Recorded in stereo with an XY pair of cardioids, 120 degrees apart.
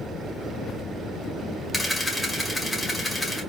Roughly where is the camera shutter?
Ahead.